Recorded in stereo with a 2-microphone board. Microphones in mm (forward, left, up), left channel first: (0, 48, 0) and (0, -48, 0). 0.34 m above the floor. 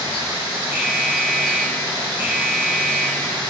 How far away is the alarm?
About 9.5 m.